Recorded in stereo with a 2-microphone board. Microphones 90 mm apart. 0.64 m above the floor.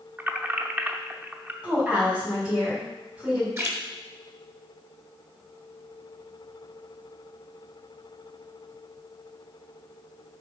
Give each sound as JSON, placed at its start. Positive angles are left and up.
{"t": 0.2, "sound": "keys jangling", "side_deg": -20, "distance_m": 0.7}
{"t": 1.6, "sound": "a woman speaking", "side_deg": -15, "distance_m": 4.0}
{"t": 3.6, "sound": "a splash", "side_deg": -30, "distance_m": 1.4}